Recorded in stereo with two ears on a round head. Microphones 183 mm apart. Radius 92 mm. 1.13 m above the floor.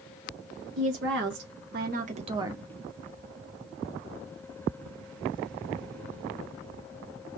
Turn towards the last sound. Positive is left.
turn(degrees=-5)  # may be behind; listen again after turning